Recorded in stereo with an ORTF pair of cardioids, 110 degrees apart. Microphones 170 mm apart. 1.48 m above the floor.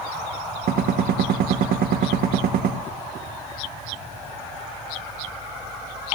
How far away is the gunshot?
About 1.5 m.